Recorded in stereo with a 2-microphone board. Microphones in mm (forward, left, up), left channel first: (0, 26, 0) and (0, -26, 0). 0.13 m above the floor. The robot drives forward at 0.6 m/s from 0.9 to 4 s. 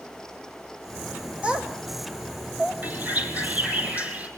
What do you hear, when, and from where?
1.4 s a child speaking: 20° right (ahead or behind), 4 m; by 2.7 s 25° right (ahead or behind), 3 m
2.8 s a bird: 35° right (ahead or behind), 3 m; by 4.3 s 30° right (ahead or behind), 4 m